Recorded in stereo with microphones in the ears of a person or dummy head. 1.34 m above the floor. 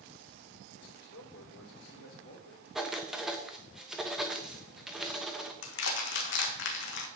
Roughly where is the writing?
Centre.